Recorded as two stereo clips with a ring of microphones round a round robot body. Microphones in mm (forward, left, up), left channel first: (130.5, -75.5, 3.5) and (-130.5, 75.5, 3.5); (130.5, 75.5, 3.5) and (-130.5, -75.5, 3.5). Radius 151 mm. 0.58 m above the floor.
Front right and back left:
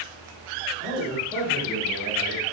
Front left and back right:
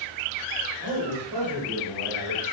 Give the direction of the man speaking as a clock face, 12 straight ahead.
5 o'clock.